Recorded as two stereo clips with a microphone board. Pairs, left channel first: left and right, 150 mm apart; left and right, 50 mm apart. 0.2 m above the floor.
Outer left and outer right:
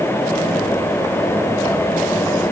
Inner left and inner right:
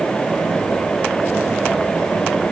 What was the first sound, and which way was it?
Only background noise.